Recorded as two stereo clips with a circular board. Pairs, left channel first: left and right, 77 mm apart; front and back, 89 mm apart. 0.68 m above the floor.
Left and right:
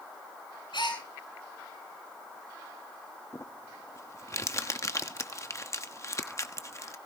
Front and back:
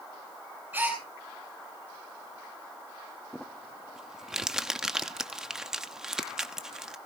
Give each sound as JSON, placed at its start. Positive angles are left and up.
{"t": 0.7, "sound": "a gasp", "azimuth_deg": 110, "distance_m": 8.5}
{"t": 3.3, "sound": "crumpling", "azimuth_deg": 100, "distance_m": 1.0}